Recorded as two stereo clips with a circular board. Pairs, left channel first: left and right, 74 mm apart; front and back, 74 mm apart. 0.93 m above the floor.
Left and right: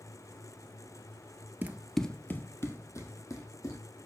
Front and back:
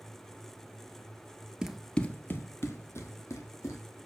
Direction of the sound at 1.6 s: 110° right.